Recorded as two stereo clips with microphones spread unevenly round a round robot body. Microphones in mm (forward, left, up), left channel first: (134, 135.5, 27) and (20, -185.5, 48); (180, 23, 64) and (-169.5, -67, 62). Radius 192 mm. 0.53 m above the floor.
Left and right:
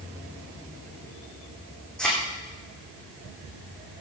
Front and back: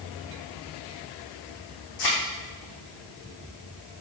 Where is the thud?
15° right, 6.5 m.